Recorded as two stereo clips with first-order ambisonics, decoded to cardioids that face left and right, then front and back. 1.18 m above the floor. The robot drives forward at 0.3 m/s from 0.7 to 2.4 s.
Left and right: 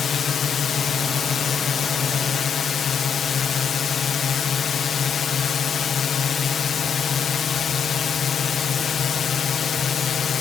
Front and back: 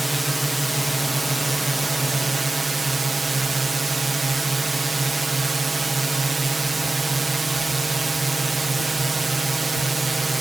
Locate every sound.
0.0 s a drone: 100° left; by 10.4 s 115° left